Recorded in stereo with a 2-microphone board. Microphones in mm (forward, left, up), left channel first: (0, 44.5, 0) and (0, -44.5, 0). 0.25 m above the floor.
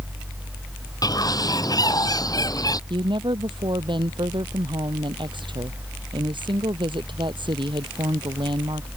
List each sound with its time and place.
1.0 s a bird: 45° left (ahead or behind)
2.9 s a woman speaking: 65° right (ahead or behind)